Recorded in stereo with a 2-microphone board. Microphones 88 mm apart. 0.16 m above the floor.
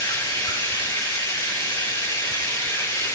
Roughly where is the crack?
I don't hear a crack.